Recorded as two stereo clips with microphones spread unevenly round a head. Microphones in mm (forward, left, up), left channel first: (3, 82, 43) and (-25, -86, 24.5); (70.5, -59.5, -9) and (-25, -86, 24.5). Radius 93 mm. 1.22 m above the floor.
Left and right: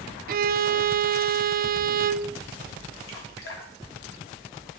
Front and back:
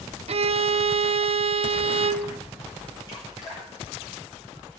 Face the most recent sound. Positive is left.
turn(degrees=80)